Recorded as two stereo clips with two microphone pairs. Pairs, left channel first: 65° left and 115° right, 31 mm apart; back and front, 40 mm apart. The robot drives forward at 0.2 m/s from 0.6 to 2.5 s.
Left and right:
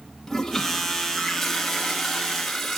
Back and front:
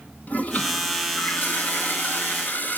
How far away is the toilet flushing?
About 1.4 m.